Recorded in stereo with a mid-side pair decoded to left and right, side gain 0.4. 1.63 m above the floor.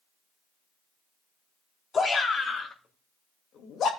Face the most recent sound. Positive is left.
turn(degrees=75)